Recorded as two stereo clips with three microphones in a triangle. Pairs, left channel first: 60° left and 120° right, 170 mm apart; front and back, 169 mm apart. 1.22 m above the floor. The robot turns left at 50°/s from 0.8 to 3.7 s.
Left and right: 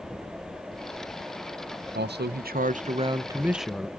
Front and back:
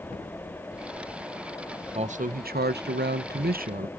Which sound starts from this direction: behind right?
A man speaking, at 1.9 s.